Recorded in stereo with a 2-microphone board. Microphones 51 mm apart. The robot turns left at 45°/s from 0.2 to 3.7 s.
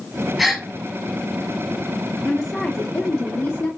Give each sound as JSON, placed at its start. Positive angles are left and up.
{"t": 0.4, "sound": "a gasp", "side_deg": 0, "distance_m": 0.9}
{"t": 2.2, "sound": "a woman speaking", "azimuth_deg": 180, "distance_m": 1.3}